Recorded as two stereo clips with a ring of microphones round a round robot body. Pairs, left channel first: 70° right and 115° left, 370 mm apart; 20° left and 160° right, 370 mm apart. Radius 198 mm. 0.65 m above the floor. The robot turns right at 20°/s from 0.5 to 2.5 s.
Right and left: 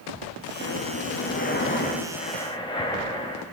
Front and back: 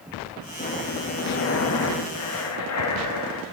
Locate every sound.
0.6 s breathing: 35° right, 1.2 m; by 3.4 s 5° left, 1.2 m